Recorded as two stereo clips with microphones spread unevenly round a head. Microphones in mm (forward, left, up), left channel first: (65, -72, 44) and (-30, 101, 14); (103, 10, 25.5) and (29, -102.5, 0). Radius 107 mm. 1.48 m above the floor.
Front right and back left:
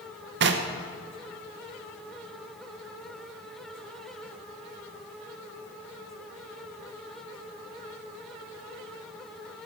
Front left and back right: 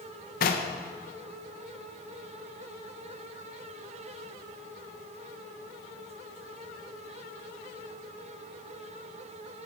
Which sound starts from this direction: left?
Knocking, at 0.4 s.